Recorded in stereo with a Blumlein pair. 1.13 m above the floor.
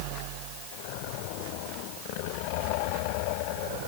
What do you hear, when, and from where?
Only background noise.